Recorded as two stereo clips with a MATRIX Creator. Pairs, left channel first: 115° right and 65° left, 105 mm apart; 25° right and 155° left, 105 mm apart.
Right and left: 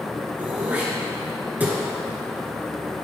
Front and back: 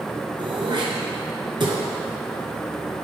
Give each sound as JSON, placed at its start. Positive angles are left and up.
{"t": 0.4, "sound": "throat clearing", "azimuth_deg": 140, "distance_m": 1.3}